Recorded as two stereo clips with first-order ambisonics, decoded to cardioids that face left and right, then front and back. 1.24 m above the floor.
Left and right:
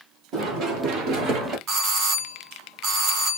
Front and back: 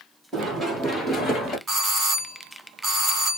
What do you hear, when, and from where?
0.3 s running footsteps: 110° right, 1.9 m; by 1.6 s 50° right, 1.6 m
1.7 s a doorbell: 110° right, 1.2 m